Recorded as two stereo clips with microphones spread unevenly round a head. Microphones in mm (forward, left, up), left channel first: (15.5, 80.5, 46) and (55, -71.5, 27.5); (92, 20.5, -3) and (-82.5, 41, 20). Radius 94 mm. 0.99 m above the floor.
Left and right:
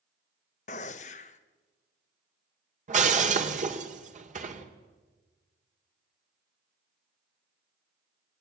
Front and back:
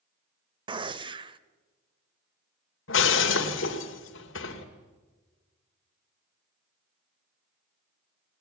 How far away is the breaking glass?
About 2.5 m.